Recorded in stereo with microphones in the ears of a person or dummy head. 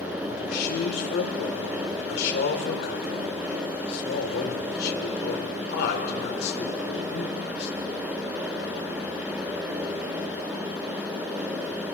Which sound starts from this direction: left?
A man speaking, at 0.3 s.